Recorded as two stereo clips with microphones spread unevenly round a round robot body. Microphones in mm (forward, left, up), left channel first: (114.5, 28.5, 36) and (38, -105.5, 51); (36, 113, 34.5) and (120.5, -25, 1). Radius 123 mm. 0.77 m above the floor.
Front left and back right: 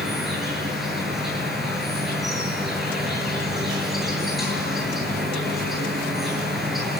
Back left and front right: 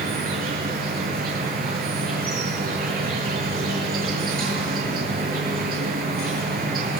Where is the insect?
30° right, 8.5 m.